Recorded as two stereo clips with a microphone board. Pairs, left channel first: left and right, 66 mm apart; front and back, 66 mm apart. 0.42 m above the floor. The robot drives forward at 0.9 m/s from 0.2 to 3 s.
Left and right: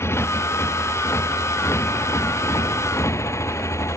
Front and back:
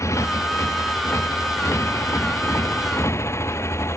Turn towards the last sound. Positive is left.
turn(degrees=45)